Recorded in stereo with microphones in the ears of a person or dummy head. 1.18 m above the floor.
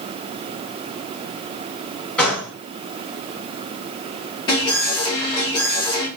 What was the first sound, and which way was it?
A gunshot, centre (ahead or behind).